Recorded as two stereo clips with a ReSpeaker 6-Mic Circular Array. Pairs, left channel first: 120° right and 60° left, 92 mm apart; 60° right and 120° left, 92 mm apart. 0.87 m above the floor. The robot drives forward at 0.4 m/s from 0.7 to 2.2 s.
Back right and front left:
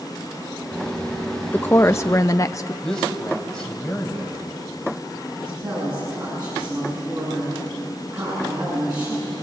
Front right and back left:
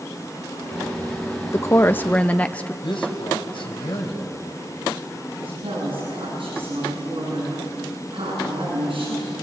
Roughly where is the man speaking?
Ahead right.